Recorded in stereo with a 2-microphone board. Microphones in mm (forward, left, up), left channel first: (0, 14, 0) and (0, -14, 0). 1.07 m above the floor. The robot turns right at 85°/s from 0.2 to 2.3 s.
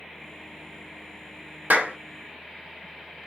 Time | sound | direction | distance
1.7 | a clap | 80° right | 0.7 m